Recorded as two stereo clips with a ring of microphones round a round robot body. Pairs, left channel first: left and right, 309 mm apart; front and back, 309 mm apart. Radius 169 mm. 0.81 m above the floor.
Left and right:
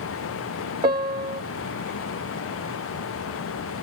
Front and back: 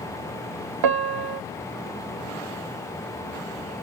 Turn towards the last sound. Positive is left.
turn(degrees=-165)